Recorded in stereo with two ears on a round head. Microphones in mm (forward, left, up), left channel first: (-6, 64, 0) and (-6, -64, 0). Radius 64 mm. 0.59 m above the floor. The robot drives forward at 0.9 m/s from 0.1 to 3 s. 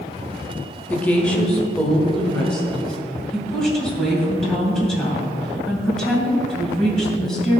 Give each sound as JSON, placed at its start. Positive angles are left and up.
{"t": 0.9, "sound": "a woman speaking", "side_deg": 10, "distance_m": 1.2}